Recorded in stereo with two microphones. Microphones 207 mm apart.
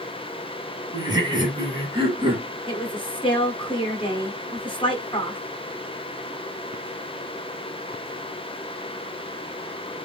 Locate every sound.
0.9 s laughter: 20° right (ahead or behind), 1.3 m; by 2.5 s 25° right (ahead or behind), 1.9 m
2.7 s a woman speaking: 25° left (ahead or behind), 1.1 m